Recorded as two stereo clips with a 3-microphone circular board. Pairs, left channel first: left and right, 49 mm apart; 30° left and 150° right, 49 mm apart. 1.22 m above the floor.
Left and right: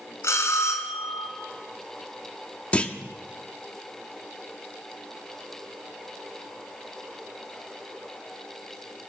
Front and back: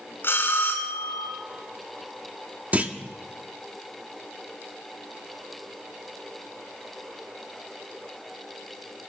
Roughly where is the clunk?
Behind left.